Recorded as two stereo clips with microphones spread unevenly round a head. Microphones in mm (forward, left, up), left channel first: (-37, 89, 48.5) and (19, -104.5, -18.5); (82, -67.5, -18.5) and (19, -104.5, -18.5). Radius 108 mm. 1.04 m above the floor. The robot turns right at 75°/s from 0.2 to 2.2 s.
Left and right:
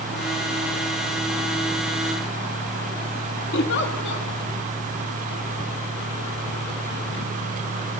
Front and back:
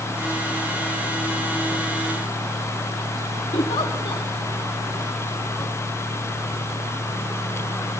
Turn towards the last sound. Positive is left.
turn(degrees=65)